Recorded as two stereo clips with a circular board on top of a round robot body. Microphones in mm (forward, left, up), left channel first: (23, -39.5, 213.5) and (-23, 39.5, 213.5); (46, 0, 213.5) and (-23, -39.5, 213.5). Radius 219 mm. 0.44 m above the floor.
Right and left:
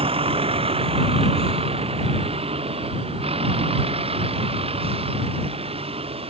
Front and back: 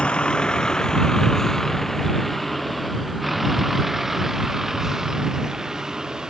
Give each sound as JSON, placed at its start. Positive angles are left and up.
{"t": 0.0, "sound": "a vehicle", "azimuth_deg": 110}